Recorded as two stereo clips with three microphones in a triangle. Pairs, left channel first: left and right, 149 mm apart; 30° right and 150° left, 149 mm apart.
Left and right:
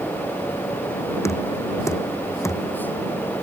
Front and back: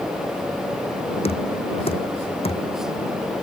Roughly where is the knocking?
Ahead.